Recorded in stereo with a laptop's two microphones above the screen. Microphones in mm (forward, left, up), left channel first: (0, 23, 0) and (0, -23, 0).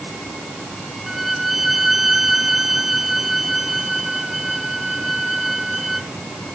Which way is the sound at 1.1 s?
5° right (ahead or behind).